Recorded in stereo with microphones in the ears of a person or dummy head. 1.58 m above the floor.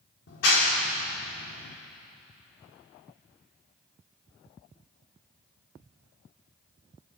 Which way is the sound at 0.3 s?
65° left (ahead or behind).